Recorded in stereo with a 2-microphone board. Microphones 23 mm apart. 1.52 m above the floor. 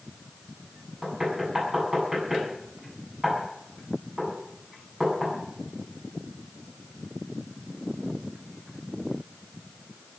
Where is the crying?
I don't hear crying.